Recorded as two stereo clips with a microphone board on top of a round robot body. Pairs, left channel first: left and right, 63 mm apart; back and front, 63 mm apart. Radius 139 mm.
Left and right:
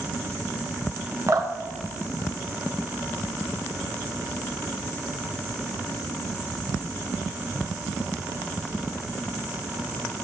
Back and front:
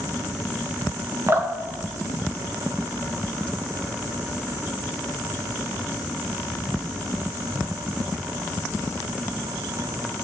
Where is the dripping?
55° right, 1.3 m.